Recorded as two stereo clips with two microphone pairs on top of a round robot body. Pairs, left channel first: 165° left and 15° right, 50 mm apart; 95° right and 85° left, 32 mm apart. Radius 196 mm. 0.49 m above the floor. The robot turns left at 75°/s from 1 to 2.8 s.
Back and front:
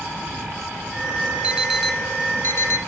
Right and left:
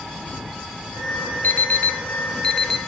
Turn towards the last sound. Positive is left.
turn(degrees=180)